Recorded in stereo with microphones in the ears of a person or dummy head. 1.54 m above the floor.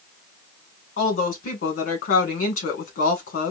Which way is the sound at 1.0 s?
50° left (ahead or behind).